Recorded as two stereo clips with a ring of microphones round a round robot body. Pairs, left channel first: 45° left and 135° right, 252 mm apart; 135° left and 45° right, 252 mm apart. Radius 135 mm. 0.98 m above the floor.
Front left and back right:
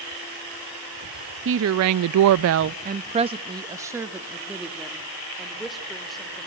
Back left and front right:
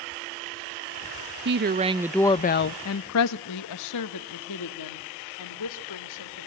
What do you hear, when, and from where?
1.4 s a woman speaking: 90° right, 0.7 m; by 6.5 s 135° left, 3 m